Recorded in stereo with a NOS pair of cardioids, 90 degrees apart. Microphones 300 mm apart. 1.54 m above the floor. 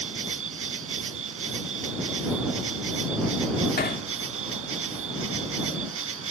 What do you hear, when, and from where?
0.0 s an insect: 45° right
3.8 s hammering: 30° left